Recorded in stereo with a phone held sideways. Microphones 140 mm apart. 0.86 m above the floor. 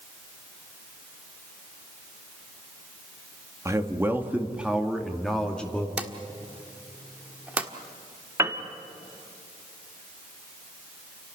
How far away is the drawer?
About 1.5 m.